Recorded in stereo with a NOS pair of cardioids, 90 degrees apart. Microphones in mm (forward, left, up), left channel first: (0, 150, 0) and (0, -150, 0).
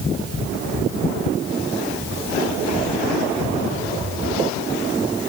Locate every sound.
Only background noise.